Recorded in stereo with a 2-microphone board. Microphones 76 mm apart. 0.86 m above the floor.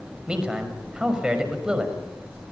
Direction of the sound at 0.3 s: 10° right (ahead or behind).